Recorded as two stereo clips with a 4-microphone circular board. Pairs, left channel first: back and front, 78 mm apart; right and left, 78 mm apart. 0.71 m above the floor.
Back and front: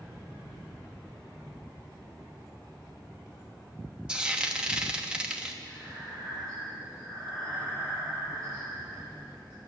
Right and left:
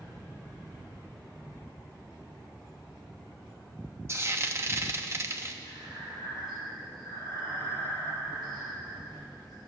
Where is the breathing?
125° left, 7 m.